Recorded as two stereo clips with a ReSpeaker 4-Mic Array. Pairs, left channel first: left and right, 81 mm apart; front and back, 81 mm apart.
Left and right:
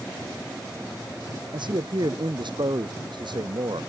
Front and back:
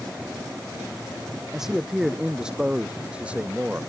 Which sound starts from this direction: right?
A man speaking, at 1.5 s.